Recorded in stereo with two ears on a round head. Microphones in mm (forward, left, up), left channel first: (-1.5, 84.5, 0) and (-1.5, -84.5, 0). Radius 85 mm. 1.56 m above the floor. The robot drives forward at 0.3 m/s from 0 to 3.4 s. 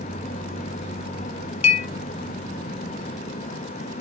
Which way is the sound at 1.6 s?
35° left (ahead or behind).